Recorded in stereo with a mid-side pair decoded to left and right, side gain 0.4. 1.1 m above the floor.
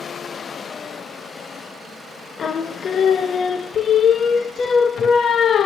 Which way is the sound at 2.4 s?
60° left.